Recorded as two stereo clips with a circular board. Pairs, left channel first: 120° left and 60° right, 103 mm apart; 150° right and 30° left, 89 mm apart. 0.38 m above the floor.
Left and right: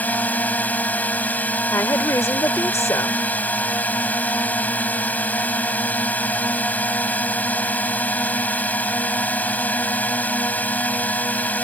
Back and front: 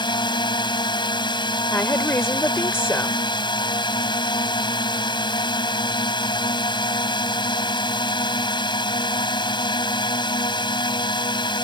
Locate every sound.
0.0 s a drone: 165° right
1.7 s a woman speaking: 160° left